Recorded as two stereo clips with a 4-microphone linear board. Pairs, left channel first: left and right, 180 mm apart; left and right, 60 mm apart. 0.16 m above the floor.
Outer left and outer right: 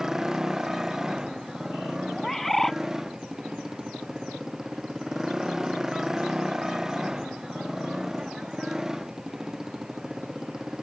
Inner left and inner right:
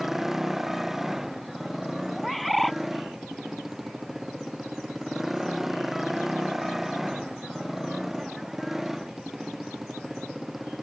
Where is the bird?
Centre (ahead or behind).